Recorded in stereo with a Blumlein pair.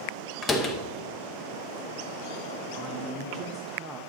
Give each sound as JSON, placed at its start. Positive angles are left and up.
{"t": 0.4, "sound": "a door slam", "azimuth_deg": 15, "distance_m": 1.1}
{"t": 2.7, "sound": "a man speaking", "azimuth_deg": -20, "distance_m": 1.0}